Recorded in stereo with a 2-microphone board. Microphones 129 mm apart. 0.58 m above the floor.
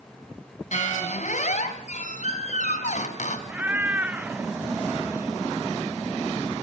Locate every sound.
0.7 s a squeak: 65° left (ahead or behind), 3 m
3.5 s a cat meowing: 15° right (ahead or behind), 0.8 m